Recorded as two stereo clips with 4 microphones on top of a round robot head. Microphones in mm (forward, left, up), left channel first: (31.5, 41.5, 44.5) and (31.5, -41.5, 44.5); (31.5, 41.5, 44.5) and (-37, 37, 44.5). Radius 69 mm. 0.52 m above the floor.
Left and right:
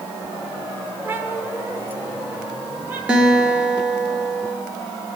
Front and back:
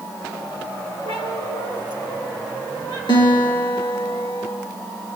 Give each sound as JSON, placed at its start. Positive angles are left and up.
{"t": 1.1, "sound": "a cat meowing", "azimuth_deg": -25, "distance_m": 5.0}
{"t": 3.1, "sound": "a guitar", "azimuth_deg": -10, "distance_m": 5.5}